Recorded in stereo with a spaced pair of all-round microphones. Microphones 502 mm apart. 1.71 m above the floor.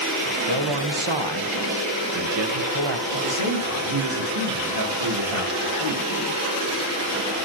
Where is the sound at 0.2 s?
60° right (ahead or behind), 1.2 m.